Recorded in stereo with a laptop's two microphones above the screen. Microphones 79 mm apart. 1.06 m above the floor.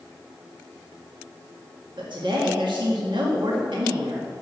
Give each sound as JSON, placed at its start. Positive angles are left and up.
{"t": 2.0, "sound": "a woman speaking", "side_deg": -75, "distance_m": 1.8}